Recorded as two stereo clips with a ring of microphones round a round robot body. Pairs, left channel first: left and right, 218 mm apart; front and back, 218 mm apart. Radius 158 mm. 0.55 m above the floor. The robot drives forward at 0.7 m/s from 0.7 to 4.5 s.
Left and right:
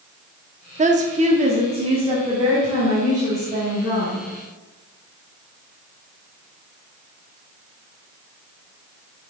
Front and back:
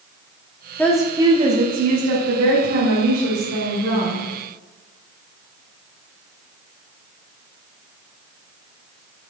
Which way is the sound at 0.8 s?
75° right.